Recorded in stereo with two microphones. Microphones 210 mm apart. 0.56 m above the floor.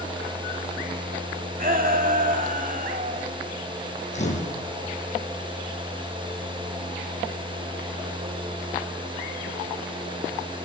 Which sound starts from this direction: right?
A shout, at 1.6 s.